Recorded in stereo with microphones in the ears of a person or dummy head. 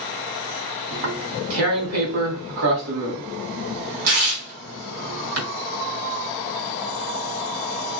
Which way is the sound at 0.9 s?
75° right (ahead or behind).